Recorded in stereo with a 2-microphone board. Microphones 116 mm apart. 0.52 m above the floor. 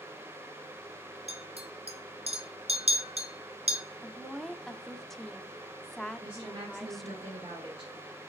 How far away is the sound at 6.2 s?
About 1.7 m.